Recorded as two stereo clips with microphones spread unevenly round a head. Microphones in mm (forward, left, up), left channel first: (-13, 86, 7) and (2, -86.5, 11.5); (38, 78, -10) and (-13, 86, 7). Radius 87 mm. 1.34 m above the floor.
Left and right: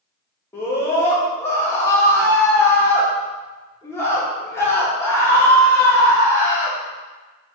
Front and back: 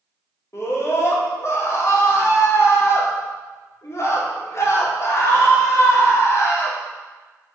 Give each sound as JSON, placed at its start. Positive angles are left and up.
{"t": 0.5, "sound": "a scream", "azimuth_deg": 20, "distance_m": 2.5}